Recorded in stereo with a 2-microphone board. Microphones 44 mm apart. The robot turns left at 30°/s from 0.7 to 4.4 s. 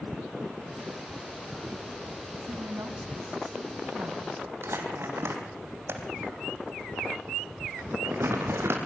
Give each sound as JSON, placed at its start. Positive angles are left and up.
{"t": 2.5, "sound": "a woman speaking", "azimuth_deg": -65, "distance_m": 3.5}
{"t": 4.6, "sound": "crumpling", "side_deg": -65, "distance_m": 4.0}